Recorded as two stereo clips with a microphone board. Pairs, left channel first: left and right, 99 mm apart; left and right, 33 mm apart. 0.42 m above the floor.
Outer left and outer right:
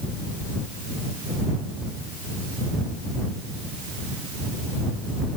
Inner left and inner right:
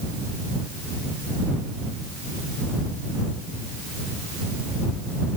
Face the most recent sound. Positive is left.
No sound to turn to.